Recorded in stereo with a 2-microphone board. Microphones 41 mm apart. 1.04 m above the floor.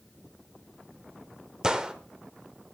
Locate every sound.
1.6 s a gunshot: 20° right (ahead or behind), 1.2 m